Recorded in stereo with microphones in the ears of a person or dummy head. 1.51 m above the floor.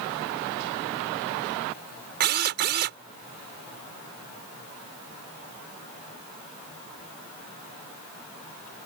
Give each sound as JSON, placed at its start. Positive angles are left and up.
{"t": 2.2, "sound": "a drill", "side_deg": -55}